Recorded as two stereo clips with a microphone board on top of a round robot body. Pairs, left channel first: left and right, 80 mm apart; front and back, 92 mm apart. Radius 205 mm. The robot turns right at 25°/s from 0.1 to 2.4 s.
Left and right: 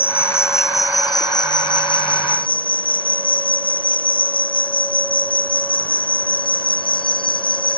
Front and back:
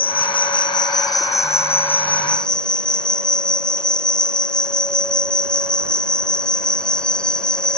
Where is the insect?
25° left; by 7.8 s 80° left.